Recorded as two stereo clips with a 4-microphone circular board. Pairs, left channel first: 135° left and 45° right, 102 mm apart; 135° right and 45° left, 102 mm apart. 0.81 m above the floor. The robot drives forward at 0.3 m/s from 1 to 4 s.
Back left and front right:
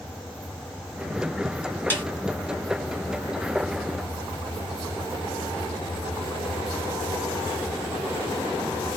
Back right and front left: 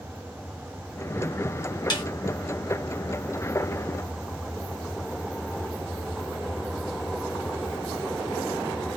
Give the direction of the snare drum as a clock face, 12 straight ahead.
5 o'clock.